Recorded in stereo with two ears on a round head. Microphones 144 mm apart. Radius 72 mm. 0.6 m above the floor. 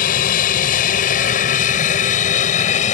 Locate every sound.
0.0 s an aircraft: 60° left (ahead or behind); by 2.9 s 50° left (ahead or behind)